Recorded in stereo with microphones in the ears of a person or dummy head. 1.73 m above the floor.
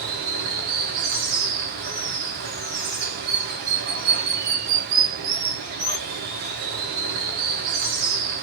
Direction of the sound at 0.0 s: 50° right (ahead or behind).